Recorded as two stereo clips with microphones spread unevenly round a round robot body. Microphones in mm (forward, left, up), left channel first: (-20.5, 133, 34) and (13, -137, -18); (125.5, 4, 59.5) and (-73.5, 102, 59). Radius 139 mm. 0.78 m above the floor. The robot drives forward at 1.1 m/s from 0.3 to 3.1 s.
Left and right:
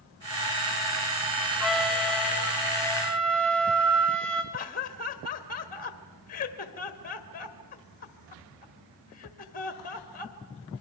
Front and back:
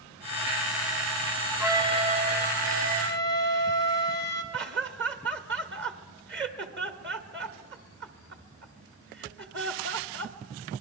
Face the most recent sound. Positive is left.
turn(degrees=160)